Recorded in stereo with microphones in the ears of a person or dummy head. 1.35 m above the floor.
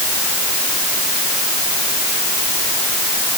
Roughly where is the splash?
I don't hear a splash.